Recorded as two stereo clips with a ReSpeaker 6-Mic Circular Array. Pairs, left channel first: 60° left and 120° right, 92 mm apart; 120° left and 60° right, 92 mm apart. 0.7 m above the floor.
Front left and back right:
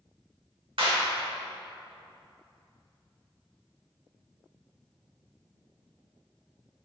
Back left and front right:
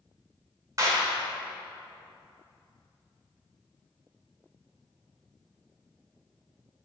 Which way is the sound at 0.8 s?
110° right.